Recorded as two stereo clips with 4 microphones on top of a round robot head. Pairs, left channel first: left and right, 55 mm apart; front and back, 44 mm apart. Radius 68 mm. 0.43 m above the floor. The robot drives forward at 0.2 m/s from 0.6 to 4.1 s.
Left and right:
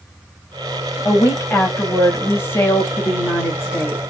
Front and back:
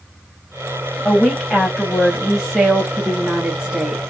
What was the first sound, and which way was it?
A woman speaking, 80° left.